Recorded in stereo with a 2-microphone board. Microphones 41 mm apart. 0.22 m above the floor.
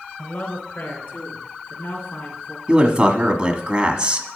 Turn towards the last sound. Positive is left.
turn(degrees=-20)  # may be behind; listen again after turning